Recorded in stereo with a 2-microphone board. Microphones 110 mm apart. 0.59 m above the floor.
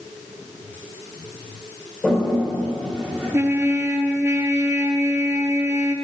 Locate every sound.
2.0 s a toilet flushing: 5° left (ahead or behind), 2.5 m
3.3 s a trumpet: 25° right (ahead or behind), 0.6 m